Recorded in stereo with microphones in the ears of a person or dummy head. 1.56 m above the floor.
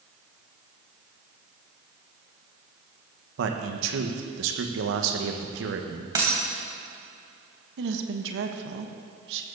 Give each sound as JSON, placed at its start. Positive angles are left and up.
{"t": 3.4, "sound": "a man speaking", "side_deg": -70, "distance_m": 1.6}
{"t": 6.2, "sound": "a dropped coin", "side_deg": -20, "distance_m": 3.5}
{"t": 7.8, "sound": "a woman speaking", "side_deg": -70, "distance_m": 1.4}